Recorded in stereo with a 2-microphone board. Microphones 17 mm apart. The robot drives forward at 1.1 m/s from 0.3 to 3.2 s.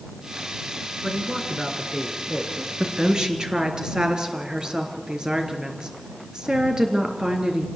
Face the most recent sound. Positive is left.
turn(degrees=-55)  # may be behind; listen again after turning